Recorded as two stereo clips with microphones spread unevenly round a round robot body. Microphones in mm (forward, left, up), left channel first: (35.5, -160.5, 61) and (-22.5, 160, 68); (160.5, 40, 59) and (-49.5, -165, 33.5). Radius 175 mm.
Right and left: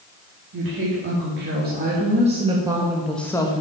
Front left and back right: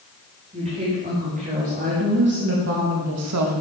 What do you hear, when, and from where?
0.5 s a woman speaking: 155° left, 1.9 m; by 3.6 s 150° right, 0.9 m